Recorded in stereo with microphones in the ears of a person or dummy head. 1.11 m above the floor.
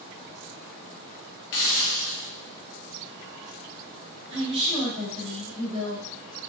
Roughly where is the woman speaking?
Right.